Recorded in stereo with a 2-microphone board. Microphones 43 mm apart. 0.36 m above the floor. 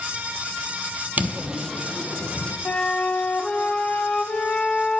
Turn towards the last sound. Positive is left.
turn(degrees=30)  # may be behind; listen again after turning